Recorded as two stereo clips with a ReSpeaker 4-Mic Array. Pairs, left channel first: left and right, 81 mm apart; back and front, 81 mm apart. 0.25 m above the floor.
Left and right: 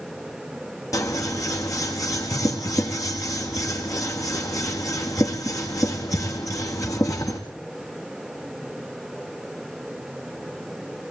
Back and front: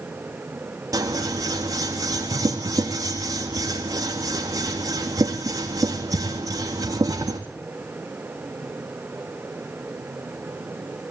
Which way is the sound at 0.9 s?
45° left.